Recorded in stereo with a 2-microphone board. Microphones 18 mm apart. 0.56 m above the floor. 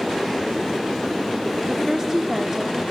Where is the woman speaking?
30° right (ahead or behind), 1.4 m.